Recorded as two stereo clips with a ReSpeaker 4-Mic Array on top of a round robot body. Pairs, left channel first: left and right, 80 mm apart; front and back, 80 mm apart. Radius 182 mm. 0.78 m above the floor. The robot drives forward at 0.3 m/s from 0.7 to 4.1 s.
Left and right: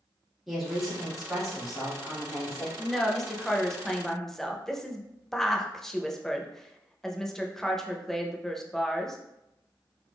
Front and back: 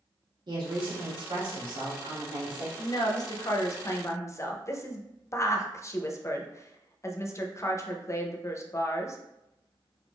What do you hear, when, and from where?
0.5 s a woman speaking: 175° right, 2 m
2.8 s a woman speaking: 5° left, 1.1 m; by 9.2 s 10° left, 0.8 m